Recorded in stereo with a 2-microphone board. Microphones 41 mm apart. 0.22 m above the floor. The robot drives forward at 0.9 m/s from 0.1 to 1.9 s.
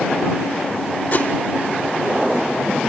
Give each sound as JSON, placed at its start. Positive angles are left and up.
{"t": 1.1, "sound": "a whoosh", "side_deg": 35, "distance_m": 1.3}